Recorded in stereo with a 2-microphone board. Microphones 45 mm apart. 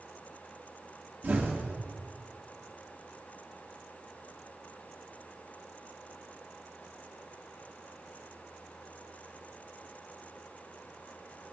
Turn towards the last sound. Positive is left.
turn(degrees=-45)  # may be behind; listen again after turning